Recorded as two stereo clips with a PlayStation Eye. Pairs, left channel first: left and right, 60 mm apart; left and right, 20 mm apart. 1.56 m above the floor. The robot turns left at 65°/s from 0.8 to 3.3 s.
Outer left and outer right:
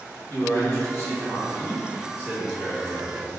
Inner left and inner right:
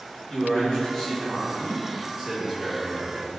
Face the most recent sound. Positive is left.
turn(degrees=-110)